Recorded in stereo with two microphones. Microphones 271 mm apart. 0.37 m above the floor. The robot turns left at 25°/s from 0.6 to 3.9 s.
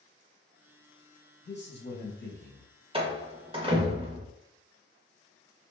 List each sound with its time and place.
1.4 s a man speaking: 100° left, 1.2 m; by 2.7 s 70° left, 1.2 m
2.9 s a door slam: 20° right (ahead or behind), 0.6 m